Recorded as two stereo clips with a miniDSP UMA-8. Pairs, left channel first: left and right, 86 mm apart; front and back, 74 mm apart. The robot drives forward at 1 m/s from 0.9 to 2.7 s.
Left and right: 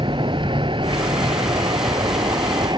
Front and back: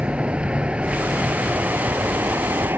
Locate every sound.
0.0 s a vehicle: 105° right; by 2.8 s 120° right